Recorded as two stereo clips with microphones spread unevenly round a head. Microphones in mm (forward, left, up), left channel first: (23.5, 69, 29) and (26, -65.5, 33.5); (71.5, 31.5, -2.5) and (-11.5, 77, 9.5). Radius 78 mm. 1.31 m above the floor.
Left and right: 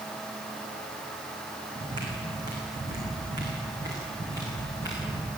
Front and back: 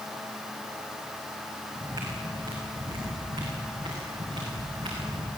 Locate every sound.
1.8 s footsteps: 150° right, 4.5 m; by 5.3 s 160° right, 8 m